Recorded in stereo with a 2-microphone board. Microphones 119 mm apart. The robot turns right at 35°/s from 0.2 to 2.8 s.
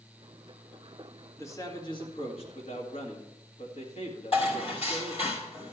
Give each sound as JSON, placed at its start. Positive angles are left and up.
{"t": 1.4, "sound": "a man speaking", "azimuth_deg": 20, "distance_m": 2.0}
{"t": 4.3, "sound": "dishes clattering", "side_deg": 60, "distance_m": 3.5}